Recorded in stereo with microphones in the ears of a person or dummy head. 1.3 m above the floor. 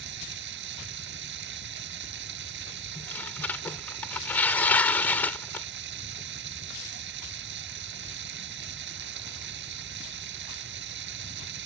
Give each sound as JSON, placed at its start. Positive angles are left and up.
{"t": 0.0, "sound": "running water", "side_deg": -70}
{"t": 3.0, "sound": "tearing paper", "side_deg": 15}